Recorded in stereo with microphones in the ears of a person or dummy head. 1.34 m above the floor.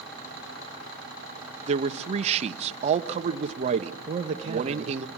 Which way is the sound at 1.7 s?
35° right (ahead or behind).